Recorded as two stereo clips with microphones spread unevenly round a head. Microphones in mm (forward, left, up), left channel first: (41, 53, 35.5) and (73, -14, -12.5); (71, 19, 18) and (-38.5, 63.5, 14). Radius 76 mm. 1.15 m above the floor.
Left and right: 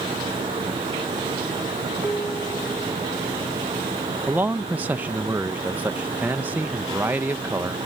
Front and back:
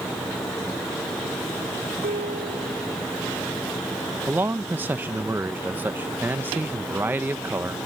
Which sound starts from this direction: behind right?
A man speaking, at 4.3 s.